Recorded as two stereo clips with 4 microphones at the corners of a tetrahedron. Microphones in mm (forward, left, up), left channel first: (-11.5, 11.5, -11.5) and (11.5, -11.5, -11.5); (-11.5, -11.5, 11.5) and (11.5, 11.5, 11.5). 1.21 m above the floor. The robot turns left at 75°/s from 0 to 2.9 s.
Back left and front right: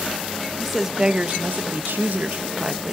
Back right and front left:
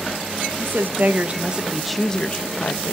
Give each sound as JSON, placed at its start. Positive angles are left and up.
{"t": 0.6, "sound": "a woman speaking", "azimuth_deg": 50, "distance_m": 0.9}